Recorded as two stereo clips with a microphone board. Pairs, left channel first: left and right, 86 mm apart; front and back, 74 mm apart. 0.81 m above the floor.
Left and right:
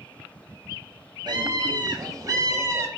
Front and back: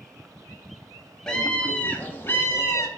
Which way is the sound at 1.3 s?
80° right.